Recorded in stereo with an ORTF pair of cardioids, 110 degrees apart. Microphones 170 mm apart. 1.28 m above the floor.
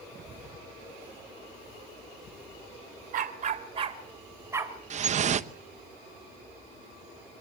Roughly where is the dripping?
Ahead right.